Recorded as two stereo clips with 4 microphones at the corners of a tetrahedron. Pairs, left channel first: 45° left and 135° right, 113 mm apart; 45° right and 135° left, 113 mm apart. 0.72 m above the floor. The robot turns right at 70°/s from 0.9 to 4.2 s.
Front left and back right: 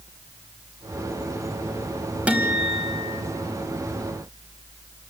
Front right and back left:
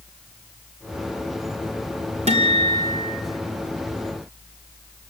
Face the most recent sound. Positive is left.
turn(degrees=-80)